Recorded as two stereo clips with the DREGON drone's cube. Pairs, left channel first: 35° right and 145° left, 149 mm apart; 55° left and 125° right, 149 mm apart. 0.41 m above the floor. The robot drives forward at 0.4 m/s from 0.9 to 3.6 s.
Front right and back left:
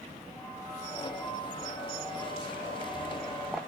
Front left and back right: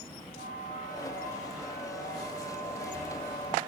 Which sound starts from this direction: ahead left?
A bell, at 0.3 s.